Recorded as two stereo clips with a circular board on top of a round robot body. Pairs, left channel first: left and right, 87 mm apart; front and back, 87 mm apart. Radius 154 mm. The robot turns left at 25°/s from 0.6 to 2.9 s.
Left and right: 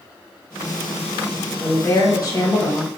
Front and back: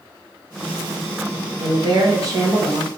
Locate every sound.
1.6 s a woman speaking: 155° left, 1.4 m; by 2.9 s 120° left, 1.4 m